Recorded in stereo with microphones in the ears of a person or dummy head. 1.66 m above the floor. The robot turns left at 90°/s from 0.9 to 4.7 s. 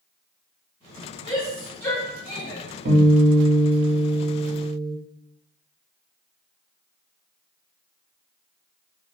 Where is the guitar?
70° right, 1.8 m; by 4.9 s 125° left, 1.8 m.